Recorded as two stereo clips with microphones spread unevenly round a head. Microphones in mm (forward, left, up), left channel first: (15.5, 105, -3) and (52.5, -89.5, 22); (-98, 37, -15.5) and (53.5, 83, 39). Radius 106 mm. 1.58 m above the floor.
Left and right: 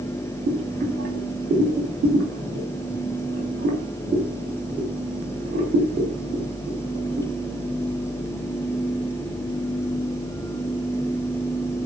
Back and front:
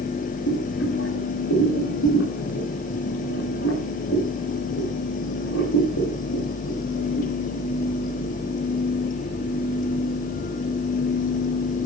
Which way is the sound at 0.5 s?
130° right.